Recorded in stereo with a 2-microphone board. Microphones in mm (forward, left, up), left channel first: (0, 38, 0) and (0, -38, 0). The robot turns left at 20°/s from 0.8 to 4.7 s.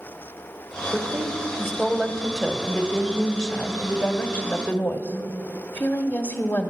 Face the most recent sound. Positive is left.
turn(degrees=25)  # may be behind; listen again after turning